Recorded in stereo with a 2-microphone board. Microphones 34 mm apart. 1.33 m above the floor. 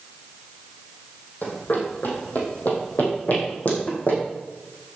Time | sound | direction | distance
1.4 | running footsteps | 65° left (ahead or behind) | 3 m